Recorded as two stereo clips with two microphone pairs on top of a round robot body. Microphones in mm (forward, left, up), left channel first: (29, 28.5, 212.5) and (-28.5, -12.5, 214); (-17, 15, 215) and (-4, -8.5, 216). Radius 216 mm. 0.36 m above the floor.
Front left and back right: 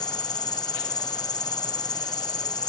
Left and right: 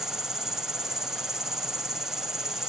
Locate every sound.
0.0 s an insect: 15° left